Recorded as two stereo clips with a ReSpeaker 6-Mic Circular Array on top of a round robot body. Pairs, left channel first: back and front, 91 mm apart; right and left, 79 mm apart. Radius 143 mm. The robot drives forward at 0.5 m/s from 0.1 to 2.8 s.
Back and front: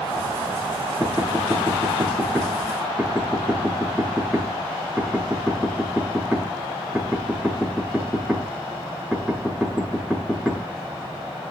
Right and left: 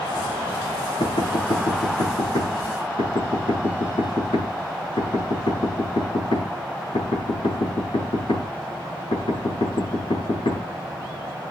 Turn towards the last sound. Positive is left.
turn(degrees=-95)